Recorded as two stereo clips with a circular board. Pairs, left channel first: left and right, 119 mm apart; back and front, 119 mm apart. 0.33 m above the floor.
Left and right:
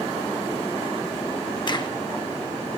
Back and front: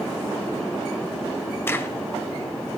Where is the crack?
115° left, 1.2 m.